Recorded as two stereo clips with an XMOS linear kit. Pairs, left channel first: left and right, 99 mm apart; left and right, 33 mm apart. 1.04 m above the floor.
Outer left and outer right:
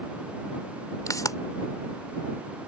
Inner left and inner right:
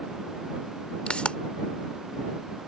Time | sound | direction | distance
1.1 | a pop | 35° left (ahead or behind) | ?